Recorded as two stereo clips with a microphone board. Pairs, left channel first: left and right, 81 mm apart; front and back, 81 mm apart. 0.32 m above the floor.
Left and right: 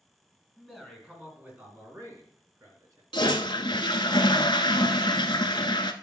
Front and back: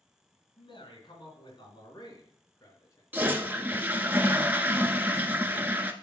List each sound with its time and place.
0.6 s a man speaking: 5° right, 3.5 m; by 3.0 s 45° right, 4 m
3.1 s a toilet flushing: 110° left, 0.7 m